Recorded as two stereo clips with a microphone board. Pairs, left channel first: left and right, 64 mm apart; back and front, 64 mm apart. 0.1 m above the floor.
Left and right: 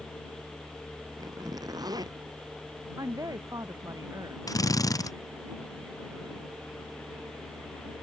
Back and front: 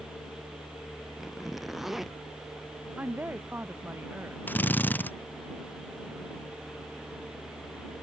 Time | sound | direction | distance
1.2 | a zipper | 90° right | ?
3.0 | a woman speaking | 65° right | ?
4.5 | a drill | 115° left | ?